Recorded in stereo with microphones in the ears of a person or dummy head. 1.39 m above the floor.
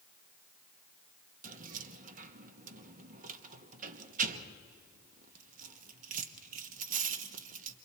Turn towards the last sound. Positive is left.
turn(degrees=-45)  # may be behind; listen again after turning